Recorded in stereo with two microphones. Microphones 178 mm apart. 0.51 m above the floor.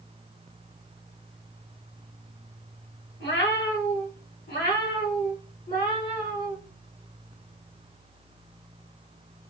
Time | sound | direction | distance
3.2 | a cat meowing | 80° left | 1.2 m